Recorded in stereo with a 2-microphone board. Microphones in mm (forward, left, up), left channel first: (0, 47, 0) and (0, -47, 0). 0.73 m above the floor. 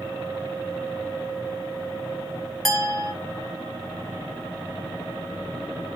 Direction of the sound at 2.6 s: 5° left (ahead or behind).